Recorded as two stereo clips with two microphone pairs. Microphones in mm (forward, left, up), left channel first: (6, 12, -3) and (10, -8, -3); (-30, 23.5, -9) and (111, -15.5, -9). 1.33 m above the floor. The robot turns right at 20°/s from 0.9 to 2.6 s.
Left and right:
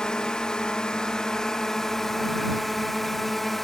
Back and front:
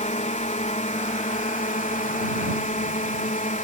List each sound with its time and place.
0.0 s a drone: 145° left; by 3.6 s 175° left